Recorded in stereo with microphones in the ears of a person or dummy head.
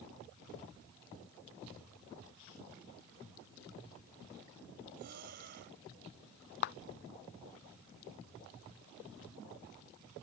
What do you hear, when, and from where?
5.0 s breathing: 50° right (ahead or behind)
6.6 s a clap: 45° left (ahead or behind)